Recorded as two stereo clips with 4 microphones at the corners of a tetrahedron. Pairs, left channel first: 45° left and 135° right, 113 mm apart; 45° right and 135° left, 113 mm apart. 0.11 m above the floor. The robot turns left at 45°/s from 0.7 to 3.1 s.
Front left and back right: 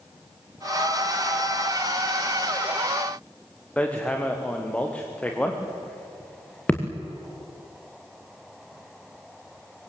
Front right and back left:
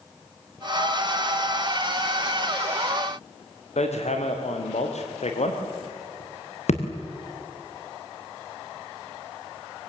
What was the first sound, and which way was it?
Hammering, 35° right.